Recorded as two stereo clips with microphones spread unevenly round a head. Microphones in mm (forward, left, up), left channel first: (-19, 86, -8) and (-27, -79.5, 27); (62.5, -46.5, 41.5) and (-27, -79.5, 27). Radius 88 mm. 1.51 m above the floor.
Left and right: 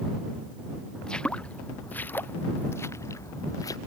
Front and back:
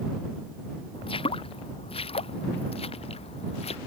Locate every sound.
0.9 s footsteps: straight ahead; by 3.8 s 15° left